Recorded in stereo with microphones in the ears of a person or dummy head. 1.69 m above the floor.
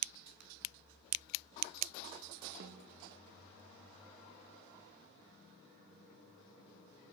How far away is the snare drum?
About 0.8 m.